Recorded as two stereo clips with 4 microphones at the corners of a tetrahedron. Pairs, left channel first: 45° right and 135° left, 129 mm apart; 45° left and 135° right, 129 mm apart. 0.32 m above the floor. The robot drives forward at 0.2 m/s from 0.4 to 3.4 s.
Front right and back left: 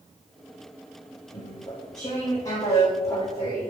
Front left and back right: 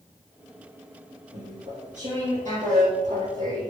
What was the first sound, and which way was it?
Chewing, 105° right.